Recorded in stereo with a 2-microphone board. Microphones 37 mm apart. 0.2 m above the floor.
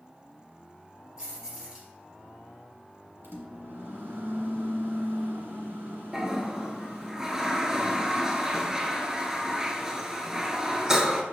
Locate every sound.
1.2 s keys jangling: 15° right (ahead or behind), 2.5 m
3.2 s a microwave: 60° right (ahead or behind), 1.7 m
6.1 s a toilet flushing: 15° right (ahead or behind), 0.8 m